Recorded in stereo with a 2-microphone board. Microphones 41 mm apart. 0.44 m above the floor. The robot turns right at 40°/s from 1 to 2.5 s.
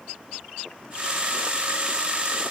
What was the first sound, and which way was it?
Only background noise.